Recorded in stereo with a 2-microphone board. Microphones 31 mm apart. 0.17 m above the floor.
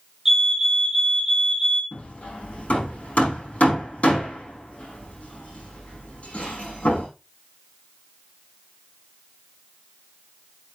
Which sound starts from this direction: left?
Hammering, at 1.9 s.